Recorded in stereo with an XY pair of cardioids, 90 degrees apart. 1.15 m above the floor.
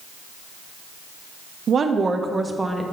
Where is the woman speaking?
55° right, 0.7 m; by 2.8 s 10° right, 0.9 m.